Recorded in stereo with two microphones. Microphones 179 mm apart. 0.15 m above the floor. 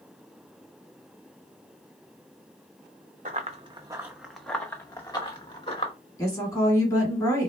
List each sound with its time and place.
3.2 s running footsteps: 45° right (ahead or behind), 0.7 m; by 5.9 s 35° left (ahead or behind), 1.3 m
6.2 s a woman speaking: 20° left (ahead or behind), 1.5 m